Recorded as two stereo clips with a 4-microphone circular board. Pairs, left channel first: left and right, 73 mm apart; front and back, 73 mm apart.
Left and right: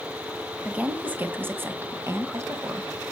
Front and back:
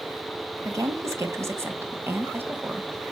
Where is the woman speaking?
160° right, 2.0 m; by 3.1 s 110° right, 2.0 m.